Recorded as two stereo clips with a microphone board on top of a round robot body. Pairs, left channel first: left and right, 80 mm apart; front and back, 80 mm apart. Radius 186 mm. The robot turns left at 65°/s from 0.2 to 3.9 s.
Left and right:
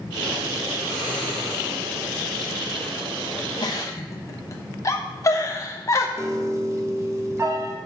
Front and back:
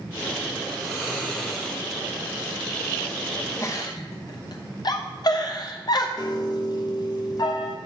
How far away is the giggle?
About 1.0 m.